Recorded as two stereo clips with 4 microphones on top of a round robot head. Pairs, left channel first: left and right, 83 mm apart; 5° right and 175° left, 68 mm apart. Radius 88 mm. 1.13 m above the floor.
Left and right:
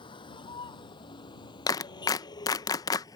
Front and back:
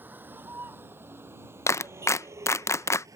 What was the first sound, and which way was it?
A vehicle, 110° left.